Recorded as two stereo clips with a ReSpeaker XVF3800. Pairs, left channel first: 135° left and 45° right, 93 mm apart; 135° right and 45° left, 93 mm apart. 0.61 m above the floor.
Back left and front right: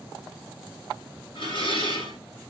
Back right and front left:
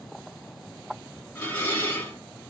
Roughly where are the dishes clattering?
Behind left.